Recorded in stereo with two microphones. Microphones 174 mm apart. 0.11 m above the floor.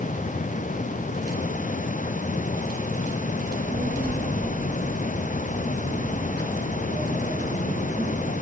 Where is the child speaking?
70° right (ahead or behind), 4.5 m.